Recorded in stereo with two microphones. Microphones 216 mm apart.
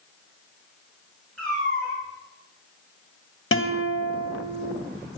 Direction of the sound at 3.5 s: 75° left (ahead or behind).